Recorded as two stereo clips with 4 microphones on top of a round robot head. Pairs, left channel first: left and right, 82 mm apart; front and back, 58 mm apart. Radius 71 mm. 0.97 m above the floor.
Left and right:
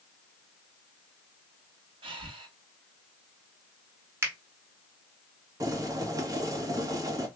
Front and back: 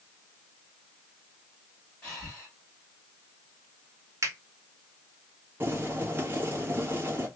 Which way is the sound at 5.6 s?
130° right.